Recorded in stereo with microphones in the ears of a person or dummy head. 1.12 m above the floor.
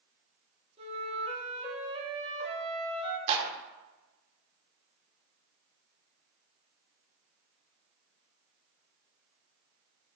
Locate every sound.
0.8 s a flute: 35° right (ahead or behind), 2.5 m
3.3 s a clap: 35° right (ahead or behind), 1.8 m